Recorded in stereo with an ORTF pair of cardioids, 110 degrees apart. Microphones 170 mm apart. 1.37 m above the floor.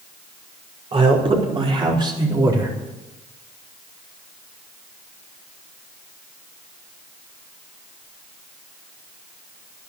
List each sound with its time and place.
0.9 s a man speaking: 35° right, 5 m; by 2.7 s 20° right, 4 m